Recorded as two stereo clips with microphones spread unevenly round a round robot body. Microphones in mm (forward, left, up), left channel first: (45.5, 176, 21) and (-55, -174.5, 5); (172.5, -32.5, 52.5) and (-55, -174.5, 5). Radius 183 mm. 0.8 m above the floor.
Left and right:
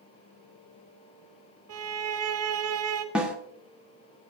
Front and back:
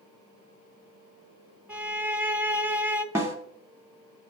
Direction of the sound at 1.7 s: 75° right.